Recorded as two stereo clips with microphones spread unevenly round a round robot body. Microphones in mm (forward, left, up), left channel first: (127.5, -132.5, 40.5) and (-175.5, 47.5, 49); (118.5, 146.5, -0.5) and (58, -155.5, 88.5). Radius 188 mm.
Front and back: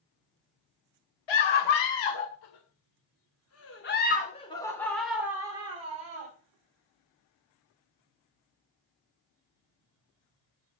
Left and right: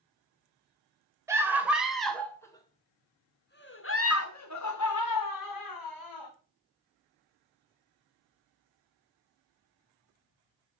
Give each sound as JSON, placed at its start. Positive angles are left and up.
{"t": 1.3, "sound": "a scream", "azimuth_deg": -20, "distance_m": 3.0}